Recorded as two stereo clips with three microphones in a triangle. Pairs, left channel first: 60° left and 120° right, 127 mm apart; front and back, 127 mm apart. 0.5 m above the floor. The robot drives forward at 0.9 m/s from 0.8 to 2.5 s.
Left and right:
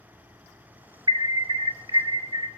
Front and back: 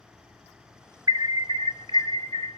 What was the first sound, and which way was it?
An alarm, 140° right.